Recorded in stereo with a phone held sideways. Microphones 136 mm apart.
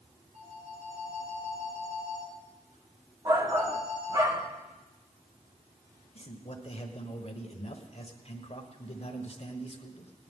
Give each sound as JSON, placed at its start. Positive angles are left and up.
{"t": 0.3, "sound": "a phone ringing", "side_deg": -80, "distance_m": 6.0}
{"t": 3.2, "sound": "a shout", "side_deg": -30, "distance_m": 1.5}
{"t": 6.2, "sound": "a man speaking", "side_deg": 50, "distance_m": 1.3}